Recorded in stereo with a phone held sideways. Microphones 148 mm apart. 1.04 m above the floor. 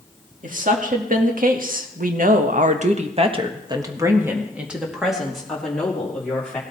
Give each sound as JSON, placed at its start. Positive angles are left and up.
{"t": 0.4, "sound": "a woman speaking", "side_deg": -60, "distance_m": 2.0}